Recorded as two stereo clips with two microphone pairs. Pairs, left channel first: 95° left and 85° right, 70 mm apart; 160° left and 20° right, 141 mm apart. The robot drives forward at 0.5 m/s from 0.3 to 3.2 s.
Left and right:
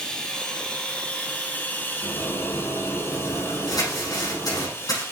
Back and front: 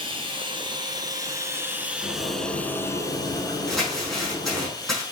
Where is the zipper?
75° left, 3.5 m; by 4.7 s 85° left, 3.5 m.